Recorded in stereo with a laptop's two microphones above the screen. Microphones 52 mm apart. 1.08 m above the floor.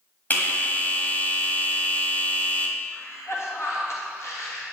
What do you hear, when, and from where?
0.3 s a bell: 35° left (ahead or behind), 1.7 m
2.9 s a cough: 65° left (ahead or behind), 2 m